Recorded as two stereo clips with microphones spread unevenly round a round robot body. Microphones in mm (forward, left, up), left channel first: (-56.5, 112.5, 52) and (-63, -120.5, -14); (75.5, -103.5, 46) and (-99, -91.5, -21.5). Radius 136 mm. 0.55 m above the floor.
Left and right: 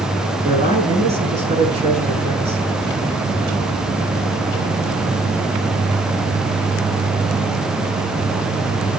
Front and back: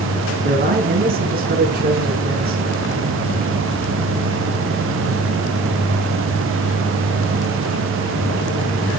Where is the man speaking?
155° right, 5 m.